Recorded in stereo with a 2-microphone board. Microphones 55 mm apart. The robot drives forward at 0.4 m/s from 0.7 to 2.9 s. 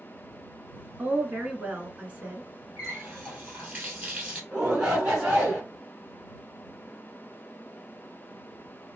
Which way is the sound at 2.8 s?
25° right (ahead or behind).